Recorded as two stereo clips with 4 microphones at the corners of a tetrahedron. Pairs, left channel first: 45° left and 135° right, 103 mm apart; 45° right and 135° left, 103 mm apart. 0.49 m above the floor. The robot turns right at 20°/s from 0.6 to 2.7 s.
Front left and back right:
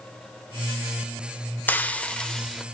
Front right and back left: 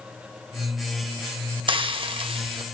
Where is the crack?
No crack in this recording.